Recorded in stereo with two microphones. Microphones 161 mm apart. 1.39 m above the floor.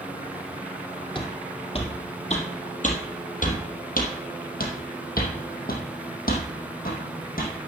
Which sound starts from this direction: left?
Footsteps, at 1.1 s.